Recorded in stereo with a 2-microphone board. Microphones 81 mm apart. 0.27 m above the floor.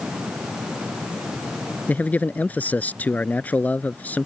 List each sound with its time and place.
1.9 s a man speaking: 20° left (ahead or behind)